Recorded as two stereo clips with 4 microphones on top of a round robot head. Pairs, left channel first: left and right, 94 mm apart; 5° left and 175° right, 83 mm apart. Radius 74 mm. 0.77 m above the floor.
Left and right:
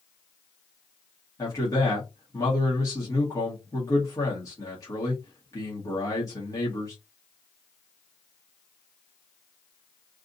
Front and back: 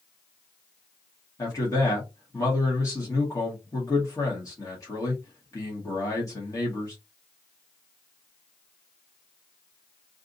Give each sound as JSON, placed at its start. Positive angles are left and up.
{"t": 1.4, "sound": "a man speaking", "azimuth_deg": 45, "distance_m": 1.7}